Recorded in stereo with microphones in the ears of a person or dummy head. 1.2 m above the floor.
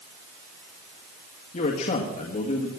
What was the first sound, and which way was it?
A man speaking, 45° left (ahead or behind).